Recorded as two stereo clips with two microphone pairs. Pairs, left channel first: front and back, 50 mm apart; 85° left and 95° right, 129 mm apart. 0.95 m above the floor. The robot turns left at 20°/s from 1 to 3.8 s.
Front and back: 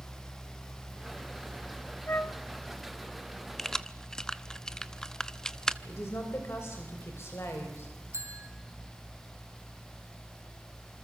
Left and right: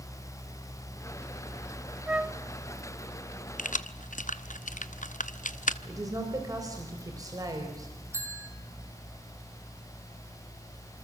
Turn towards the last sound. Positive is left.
turn(degrees=-160)